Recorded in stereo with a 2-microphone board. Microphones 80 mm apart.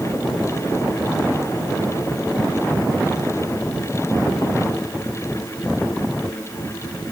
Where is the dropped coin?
I don't hear a dropped coin.